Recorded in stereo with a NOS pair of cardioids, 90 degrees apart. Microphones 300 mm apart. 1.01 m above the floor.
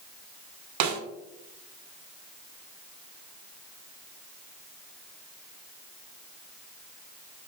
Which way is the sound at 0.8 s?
70° right.